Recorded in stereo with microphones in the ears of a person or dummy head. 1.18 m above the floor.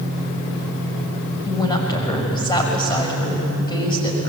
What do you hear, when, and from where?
1.4 s a woman speaking: 25° left (ahead or behind), 6 m